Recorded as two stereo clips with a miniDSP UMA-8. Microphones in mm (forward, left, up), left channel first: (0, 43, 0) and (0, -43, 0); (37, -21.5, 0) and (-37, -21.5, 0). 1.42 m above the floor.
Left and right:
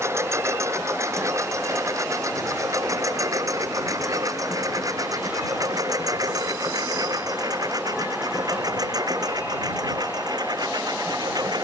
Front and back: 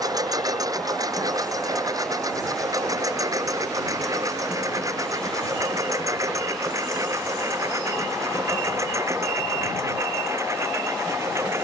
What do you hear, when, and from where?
0.0 s a lawn mower: 145° right; by 11.7 s 130° right